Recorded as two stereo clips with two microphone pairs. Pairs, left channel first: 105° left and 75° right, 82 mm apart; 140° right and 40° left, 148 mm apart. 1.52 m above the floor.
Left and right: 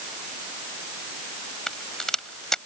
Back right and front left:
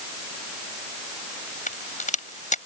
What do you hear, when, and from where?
1.7 s a crack: 170° right